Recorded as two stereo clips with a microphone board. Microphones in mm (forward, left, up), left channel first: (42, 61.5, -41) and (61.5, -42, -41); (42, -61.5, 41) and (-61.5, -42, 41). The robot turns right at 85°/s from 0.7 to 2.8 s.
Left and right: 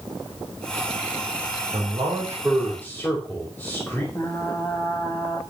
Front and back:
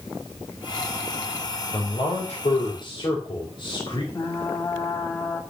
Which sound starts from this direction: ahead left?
Frying, at 4.1 s.